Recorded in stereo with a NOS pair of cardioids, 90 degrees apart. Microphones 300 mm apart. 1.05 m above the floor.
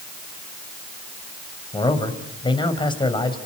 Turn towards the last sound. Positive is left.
turn(degrees=15)